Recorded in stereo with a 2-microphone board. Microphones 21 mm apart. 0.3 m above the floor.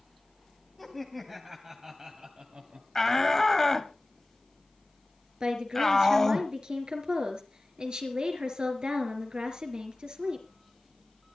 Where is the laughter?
Centre (ahead or behind), 2.5 m; by 2.9 s 55° right (ahead or behind), 2.5 m.